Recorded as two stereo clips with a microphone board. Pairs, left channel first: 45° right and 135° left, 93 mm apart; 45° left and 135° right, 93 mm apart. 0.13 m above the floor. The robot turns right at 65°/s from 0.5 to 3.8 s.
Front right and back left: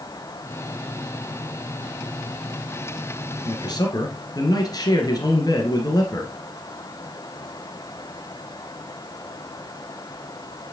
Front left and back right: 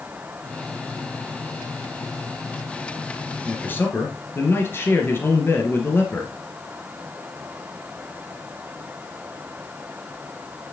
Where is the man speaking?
35° right, 1.9 m; by 6.3 s 15° right, 1.9 m.